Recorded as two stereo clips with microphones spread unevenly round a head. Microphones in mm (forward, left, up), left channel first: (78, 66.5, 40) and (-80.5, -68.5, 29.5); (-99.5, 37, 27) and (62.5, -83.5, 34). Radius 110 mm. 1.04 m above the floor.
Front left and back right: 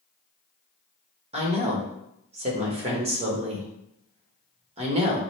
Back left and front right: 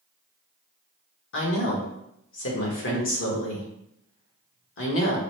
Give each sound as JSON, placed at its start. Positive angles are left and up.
{"t": 1.3, "sound": "a woman speaking", "azimuth_deg": 160, "distance_m": 1.4}